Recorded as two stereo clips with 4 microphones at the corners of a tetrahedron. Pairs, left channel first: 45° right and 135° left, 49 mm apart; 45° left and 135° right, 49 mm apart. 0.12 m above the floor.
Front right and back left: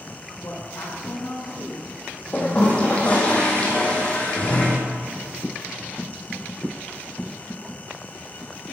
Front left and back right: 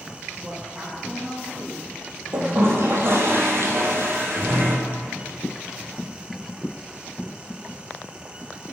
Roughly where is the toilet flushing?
Right.